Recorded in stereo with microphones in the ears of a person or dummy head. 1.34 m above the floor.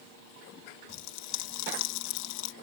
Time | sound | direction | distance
0.9 | a pop | 75° left (ahead or behind) | ?